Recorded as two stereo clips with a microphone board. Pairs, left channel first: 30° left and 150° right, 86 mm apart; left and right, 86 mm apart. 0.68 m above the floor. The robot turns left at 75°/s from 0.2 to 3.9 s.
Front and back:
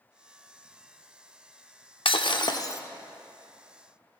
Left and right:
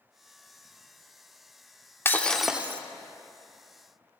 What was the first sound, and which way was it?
Breaking glass, 25° left.